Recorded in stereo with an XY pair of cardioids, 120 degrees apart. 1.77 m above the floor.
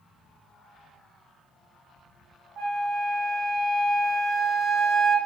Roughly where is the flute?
Ahead right.